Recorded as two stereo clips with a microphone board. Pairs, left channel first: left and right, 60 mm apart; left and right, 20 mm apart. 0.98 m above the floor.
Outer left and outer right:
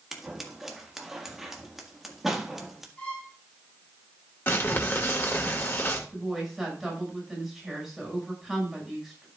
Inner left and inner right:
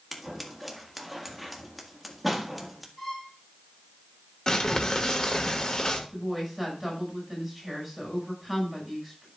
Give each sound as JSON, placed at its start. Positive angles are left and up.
{"t": 0.1, "sound": "scissors", "side_deg": -5, "distance_m": 1.6}
{"t": 3.0, "sound": "a violin", "side_deg": 20, "distance_m": 3.0}
{"t": 4.5, "sound": "crumpling", "side_deg": 40, "distance_m": 1.9}
{"t": 6.1, "sound": "a woman speaking", "side_deg": 0, "distance_m": 6.5}